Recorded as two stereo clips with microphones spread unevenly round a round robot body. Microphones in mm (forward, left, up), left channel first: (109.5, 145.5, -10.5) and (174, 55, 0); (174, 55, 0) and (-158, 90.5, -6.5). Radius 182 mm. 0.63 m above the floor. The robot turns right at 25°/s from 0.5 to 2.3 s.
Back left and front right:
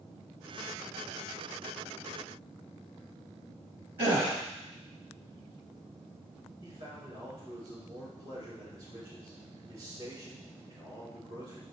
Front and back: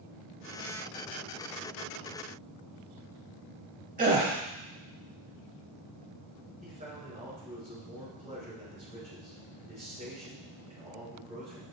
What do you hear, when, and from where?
4.0 s a gasp: 115° right, 0.9 m
6.6 s a man speaking: 115° right, 3 m